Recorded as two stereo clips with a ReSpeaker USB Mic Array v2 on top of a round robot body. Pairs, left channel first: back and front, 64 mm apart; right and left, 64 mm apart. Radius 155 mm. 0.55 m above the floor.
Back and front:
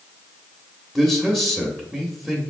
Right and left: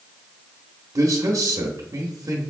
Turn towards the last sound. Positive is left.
turn(degrees=85)